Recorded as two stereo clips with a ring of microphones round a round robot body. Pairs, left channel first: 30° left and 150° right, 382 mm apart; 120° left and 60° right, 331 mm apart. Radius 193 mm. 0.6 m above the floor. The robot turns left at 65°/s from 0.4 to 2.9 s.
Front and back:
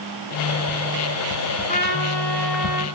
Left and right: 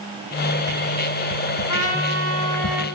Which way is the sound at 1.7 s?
95° left.